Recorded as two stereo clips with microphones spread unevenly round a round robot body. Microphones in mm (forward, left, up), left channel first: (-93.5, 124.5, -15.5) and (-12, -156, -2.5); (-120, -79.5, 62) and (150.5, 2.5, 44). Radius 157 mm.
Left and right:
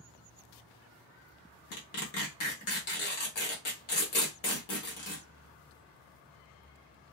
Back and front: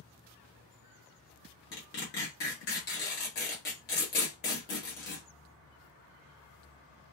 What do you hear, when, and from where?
1.7 s tearing paper: 140° left, 1.4 m